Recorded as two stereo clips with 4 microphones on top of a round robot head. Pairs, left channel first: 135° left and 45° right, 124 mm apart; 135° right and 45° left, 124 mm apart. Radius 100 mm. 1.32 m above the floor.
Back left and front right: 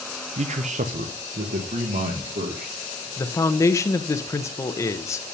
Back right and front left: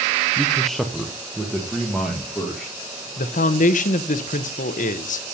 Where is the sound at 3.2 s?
155° right, 0.9 m.